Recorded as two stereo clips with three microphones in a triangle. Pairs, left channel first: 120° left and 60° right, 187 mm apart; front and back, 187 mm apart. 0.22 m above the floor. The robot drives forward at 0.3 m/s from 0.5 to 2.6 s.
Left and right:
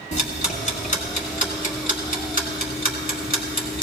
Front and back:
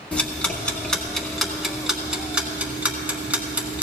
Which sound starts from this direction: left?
Ticking, at 0.1 s.